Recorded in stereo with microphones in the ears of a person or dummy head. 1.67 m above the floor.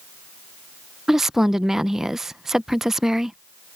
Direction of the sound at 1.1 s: 5° right (ahead or behind).